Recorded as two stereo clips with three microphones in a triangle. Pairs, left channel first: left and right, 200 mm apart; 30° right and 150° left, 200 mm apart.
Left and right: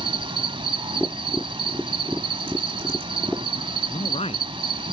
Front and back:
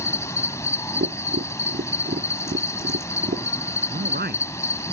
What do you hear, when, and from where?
0.0 s an insect: 85° right
1.0 s tapping: straight behind
3.9 s a man speaking: 140° left